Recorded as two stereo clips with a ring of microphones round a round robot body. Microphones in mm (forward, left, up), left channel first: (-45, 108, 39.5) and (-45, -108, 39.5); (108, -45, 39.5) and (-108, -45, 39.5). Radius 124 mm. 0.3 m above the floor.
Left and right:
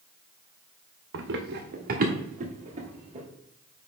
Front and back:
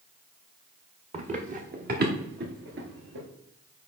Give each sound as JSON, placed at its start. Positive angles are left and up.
{"t": 1.1, "sound": "running footsteps", "azimuth_deg": -120, "distance_m": 1.7}